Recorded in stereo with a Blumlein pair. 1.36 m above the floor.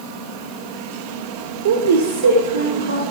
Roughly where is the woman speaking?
Ahead right.